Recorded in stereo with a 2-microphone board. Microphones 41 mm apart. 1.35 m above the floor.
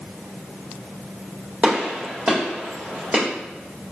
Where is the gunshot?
40° right (ahead or behind), 1.9 m.